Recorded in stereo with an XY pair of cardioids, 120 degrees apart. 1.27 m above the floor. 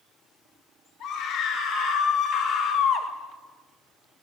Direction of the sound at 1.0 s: 70° left.